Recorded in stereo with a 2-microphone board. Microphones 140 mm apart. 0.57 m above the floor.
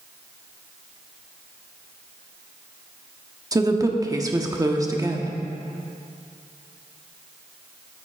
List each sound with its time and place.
3.5 s a woman speaking: 25° right (ahead or behind), 0.9 m